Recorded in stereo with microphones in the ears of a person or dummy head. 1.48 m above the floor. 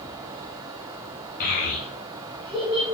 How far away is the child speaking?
About 0.8 m.